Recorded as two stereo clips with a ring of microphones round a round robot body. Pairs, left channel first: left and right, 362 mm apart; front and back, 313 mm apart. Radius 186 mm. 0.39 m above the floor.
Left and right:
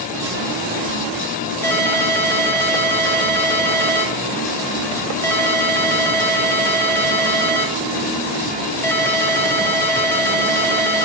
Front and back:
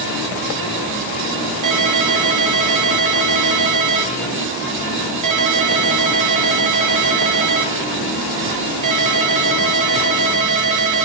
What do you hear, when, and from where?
1.6 s a ringtone: 175° left, 1.3 m